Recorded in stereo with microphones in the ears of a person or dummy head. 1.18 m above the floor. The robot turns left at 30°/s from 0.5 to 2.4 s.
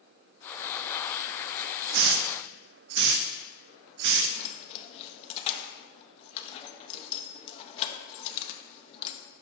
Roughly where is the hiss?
Right.